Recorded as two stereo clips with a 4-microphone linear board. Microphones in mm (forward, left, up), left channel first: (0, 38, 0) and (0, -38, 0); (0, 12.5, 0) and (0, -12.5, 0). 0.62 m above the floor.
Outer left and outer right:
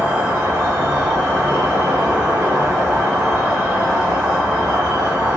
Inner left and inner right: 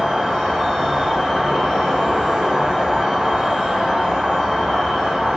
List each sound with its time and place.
0.0 s an insect: 30° right (ahead or behind), 1.1 m